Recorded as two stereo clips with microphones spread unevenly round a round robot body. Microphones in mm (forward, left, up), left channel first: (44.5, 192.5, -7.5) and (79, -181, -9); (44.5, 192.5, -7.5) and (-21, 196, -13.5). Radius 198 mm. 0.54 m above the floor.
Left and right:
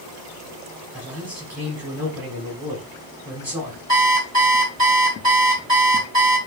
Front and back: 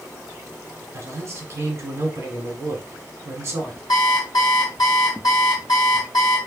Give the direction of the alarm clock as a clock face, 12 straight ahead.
1 o'clock.